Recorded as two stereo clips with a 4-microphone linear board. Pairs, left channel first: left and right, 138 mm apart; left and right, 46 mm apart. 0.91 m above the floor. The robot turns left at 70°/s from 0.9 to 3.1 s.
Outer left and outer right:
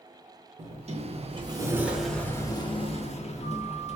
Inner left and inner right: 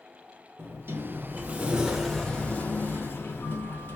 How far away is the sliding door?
About 0.7 m.